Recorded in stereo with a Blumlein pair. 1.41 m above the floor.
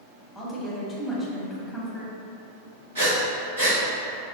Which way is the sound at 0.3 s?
Straight ahead.